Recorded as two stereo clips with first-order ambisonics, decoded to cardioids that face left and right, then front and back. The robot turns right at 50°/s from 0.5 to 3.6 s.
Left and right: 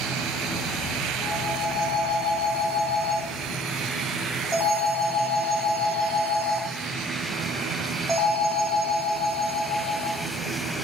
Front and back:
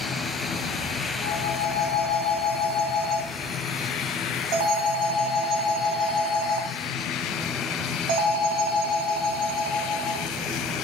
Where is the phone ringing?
55° left, 3.5 m; by 10.3 s 175° left, 3.5 m.